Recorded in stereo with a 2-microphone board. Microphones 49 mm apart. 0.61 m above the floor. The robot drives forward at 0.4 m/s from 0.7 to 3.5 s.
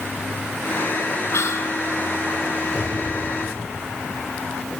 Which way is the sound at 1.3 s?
70° left (ahead or behind).